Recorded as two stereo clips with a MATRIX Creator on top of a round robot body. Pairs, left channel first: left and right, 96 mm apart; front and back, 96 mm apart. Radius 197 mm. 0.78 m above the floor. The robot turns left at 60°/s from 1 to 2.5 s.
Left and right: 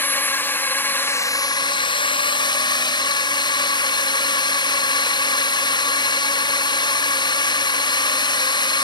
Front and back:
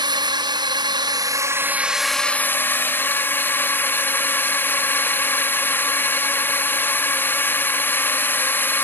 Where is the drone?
155° left; by 8.8 s 65° left.